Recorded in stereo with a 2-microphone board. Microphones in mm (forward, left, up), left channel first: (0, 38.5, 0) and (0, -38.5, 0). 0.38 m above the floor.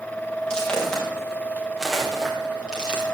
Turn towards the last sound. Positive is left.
turn(degrees=-15)  # may be behind; listen again after turning